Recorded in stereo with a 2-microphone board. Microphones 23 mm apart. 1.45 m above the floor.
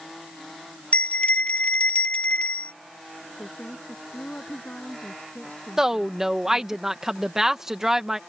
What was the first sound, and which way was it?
A bell, 90° left.